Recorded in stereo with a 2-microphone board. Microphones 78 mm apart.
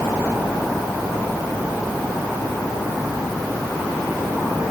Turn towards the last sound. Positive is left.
No sound to turn to.